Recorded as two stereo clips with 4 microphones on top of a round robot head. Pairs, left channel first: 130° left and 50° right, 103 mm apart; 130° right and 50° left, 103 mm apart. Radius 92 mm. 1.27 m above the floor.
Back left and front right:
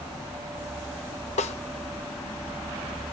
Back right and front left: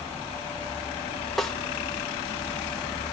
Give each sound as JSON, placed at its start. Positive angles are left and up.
{"t": 1.4, "sound": "a snare drum", "azimuth_deg": 140, "distance_m": 0.7}